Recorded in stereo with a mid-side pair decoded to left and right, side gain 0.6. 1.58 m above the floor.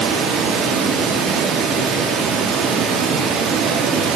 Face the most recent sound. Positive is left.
turn(degrees=-60)